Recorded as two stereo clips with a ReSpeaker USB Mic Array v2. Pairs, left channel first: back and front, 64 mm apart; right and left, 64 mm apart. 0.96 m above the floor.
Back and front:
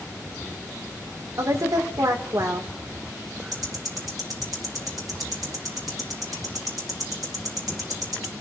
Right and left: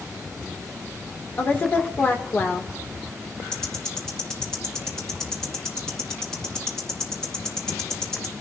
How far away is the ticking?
About 2 m.